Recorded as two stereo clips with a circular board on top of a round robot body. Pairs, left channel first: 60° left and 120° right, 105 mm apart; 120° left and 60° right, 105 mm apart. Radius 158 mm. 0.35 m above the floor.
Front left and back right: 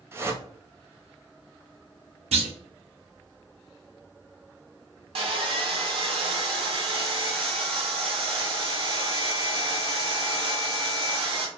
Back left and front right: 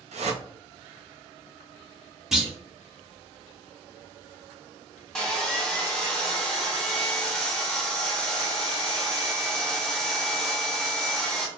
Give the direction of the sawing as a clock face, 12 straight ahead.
5 o'clock.